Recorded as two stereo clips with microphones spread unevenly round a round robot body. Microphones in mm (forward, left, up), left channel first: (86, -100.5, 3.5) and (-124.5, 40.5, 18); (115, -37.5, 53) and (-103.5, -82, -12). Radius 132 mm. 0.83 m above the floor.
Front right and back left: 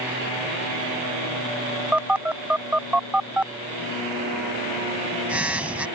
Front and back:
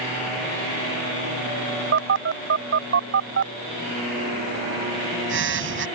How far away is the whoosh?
No whoosh in this recording.